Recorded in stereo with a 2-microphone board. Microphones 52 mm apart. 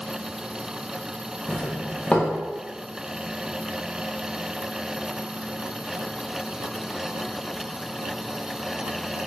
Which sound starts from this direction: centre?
A doorbell, at 1.5 s.